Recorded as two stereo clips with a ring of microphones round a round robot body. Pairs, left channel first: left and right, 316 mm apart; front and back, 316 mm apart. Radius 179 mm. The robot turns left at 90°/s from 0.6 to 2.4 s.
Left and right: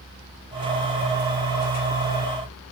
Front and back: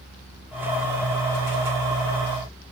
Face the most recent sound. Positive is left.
No sound to turn to.